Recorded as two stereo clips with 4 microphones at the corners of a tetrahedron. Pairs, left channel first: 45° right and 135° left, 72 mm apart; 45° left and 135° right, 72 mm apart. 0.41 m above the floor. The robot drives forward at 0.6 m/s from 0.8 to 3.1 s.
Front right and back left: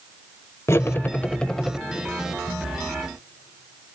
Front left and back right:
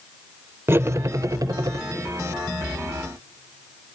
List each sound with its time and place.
0.7 s cutlery clinking: 85° right, 0.7 m; by 1.8 s 135° right, 0.9 m